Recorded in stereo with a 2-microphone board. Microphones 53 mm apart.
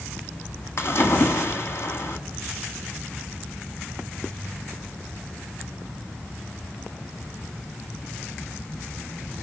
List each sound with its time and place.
0.8 s a splash: 50° left (ahead or behind), 1.8 m